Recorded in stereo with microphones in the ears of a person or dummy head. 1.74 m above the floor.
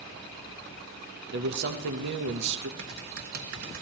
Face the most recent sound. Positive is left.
turn(degrees=-60)  # may be behind; listen again after turning